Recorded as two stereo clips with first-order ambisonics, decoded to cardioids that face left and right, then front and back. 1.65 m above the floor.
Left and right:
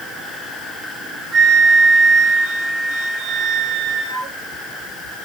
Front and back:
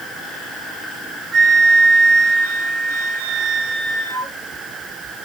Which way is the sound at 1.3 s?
145° right.